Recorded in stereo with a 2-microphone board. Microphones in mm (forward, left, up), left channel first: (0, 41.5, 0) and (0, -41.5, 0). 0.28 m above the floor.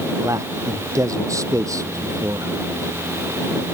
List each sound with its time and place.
0.2 s a man speaking: 40° right (ahead or behind)